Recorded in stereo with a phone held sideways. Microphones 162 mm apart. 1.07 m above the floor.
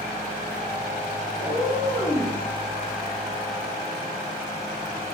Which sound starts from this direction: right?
A cat meowing, at 1.4 s.